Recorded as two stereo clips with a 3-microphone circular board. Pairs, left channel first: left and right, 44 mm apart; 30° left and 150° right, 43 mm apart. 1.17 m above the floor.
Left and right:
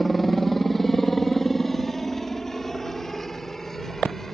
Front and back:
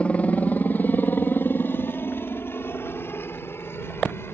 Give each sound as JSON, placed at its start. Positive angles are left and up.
{"t": 0.0, "sound": "a helicopter", "azimuth_deg": 5}